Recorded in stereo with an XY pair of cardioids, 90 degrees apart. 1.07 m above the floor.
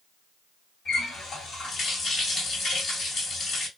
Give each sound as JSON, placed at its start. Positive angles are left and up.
{"t": 0.8, "sound": "a running tap", "azimuth_deg": 65, "distance_m": 1.7}